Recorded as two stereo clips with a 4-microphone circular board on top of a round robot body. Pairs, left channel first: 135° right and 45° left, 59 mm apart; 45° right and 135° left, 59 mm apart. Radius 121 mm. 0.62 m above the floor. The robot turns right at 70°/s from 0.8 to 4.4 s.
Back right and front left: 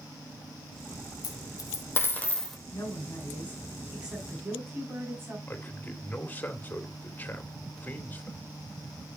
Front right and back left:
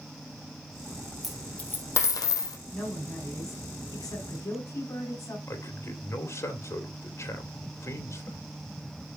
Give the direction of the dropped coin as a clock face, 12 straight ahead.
5 o'clock.